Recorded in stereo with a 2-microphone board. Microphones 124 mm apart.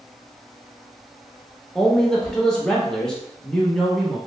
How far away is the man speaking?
About 0.6 m.